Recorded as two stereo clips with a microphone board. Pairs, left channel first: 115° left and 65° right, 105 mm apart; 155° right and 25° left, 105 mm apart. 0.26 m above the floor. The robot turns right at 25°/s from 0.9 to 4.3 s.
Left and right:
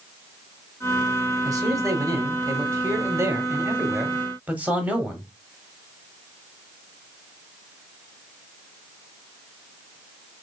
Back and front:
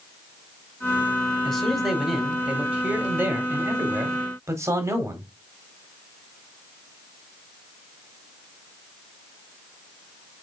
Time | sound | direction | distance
1.4 | a man speaking | 75° right | 1.2 m